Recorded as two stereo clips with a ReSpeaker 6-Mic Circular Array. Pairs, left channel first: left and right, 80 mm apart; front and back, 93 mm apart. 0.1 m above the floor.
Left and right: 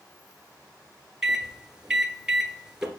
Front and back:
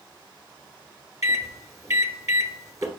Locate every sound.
1.2 s a microwave: 165° right, 1.2 m